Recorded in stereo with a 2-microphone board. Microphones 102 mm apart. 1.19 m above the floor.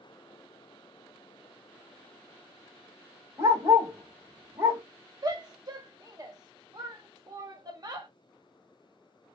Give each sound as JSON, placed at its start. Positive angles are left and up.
{"t": 3.4, "sound": "a dog barking", "side_deg": -25, "distance_m": 1.1}
{"t": 5.2, "sound": "a shout", "side_deg": -35, "distance_m": 0.9}